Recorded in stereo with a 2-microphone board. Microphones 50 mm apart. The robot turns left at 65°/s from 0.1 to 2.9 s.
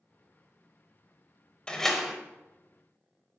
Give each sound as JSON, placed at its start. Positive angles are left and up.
{"t": 1.7, "sound": "a door slam", "azimuth_deg": 20, "distance_m": 0.8}